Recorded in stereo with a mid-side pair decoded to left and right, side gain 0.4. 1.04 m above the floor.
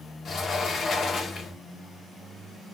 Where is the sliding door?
55° left, 0.8 m.